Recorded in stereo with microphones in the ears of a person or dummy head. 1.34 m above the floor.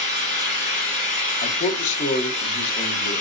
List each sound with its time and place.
0.0 s an engine running: 40° left (ahead or behind), 3.5 m
1.4 s a man speaking: 45° left (ahead or behind), 0.8 m